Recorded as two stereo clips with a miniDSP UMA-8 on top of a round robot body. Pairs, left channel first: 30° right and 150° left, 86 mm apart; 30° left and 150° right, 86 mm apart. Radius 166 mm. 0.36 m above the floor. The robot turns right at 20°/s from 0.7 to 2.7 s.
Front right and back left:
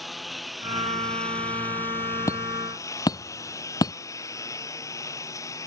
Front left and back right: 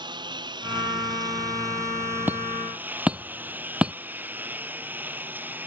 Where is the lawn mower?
120° right; by 5.7 s 80° right.